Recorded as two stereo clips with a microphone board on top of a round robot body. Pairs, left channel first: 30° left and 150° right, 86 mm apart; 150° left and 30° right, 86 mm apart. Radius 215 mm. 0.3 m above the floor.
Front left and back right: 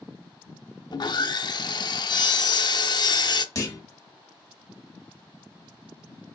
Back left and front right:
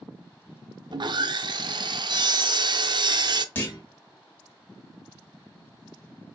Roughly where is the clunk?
Left.